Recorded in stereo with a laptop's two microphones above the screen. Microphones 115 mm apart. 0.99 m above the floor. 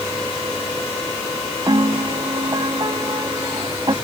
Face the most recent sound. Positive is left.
turn(degrees=-40)  # may be behind; listen again after turning